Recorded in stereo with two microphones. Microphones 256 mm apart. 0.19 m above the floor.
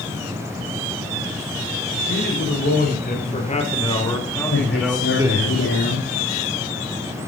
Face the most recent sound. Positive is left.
turn(degrees=65)  # may be behind; listen again after turning